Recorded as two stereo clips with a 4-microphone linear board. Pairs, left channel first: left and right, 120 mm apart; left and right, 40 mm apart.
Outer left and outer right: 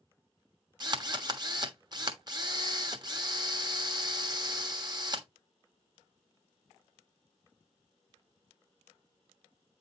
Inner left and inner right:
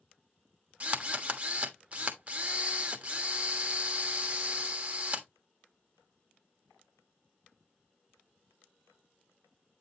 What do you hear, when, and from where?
0.8 s a drill: 35° right (ahead or behind), 1.3 m